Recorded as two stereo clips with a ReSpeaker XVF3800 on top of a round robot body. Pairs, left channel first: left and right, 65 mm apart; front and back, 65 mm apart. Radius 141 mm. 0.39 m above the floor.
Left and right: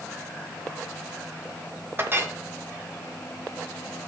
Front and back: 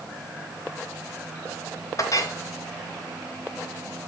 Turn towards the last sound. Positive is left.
turn(degrees=-35)